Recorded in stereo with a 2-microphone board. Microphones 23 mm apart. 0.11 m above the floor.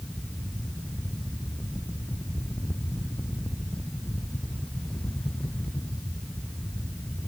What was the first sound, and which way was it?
Only background noise.